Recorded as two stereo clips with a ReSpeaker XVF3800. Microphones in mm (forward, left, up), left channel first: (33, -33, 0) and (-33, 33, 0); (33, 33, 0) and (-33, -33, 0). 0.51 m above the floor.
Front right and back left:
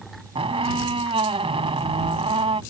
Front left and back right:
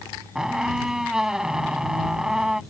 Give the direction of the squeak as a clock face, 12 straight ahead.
7 o'clock.